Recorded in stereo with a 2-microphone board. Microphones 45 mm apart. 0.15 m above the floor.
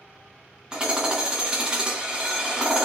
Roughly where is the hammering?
Right.